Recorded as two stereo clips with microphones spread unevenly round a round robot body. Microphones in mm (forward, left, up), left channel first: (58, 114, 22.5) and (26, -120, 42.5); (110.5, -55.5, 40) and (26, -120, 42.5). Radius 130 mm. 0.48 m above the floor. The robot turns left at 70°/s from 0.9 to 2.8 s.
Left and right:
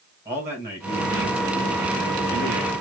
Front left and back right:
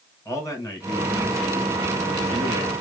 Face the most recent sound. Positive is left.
turn(degrees=-150)